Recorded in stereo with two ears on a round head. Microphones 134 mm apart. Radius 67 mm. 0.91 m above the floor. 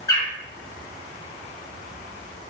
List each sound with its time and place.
0.1 s a bird: 20° left (ahead or behind), 1.4 m